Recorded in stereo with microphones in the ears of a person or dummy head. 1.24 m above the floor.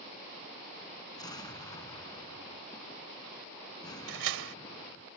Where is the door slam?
80° right.